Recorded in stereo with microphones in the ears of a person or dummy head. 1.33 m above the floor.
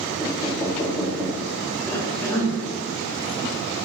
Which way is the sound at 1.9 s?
10° left (ahead or behind).